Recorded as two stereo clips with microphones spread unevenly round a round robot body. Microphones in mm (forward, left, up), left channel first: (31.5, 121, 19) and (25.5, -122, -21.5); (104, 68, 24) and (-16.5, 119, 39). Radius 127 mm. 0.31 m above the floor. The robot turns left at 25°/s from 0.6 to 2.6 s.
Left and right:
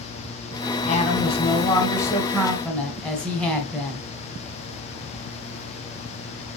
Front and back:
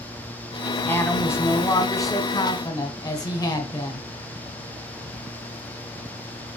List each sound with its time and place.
0.9 s a woman speaking: 35° left, 1.5 m; by 4.1 s 5° right, 1.5 m